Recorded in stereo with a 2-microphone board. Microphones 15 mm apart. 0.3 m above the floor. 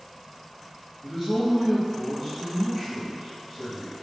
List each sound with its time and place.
1.0 s a man speaking: 25° left (ahead or behind), 1.5 m